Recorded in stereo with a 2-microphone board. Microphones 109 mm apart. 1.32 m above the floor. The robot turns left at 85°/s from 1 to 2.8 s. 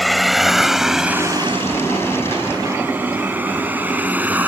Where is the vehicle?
Centre (ahead or behind); by 4.5 s 15° right (ahead or behind).